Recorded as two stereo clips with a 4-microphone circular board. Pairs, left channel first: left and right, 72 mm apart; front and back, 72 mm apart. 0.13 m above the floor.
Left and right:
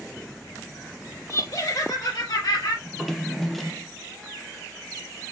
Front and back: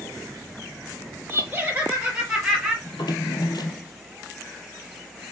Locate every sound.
1.3 s laughter: 120° left, 3.5 m; by 2.8 s 95° left, 3.5 m
2.9 s a drawer: straight ahead, 1.3 m